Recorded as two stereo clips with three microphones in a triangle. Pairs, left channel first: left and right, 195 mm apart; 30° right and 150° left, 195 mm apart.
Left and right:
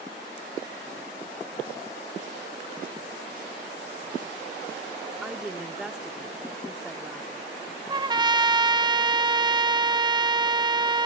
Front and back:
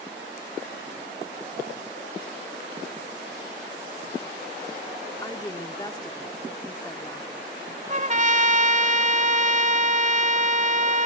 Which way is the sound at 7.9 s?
155° right.